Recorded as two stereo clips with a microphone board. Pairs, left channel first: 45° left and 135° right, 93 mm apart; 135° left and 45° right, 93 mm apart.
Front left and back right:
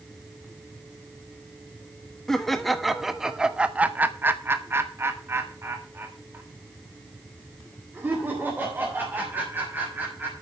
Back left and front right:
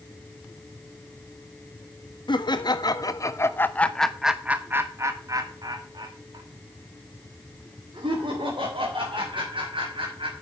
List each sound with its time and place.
2.3 s laughter: 130° left, 1.4 m; by 10.3 s 65° right, 4 m